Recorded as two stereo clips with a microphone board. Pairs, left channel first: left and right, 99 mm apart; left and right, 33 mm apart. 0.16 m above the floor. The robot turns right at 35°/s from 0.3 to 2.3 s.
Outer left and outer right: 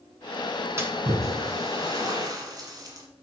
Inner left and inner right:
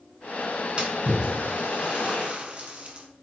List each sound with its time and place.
0.8 s a splash: 25° right (ahead or behind), 1.5 m; by 3.1 s 40° right (ahead or behind), 1.5 m